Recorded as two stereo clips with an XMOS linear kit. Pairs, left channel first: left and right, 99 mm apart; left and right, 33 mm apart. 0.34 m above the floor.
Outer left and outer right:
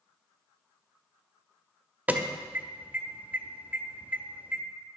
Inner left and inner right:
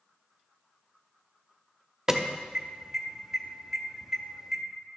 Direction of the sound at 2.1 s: 15° right (ahead or behind).